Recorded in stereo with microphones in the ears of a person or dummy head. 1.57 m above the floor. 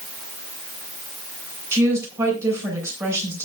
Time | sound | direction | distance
1.7 | a woman speaking | 20° right (ahead or behind) | 8 m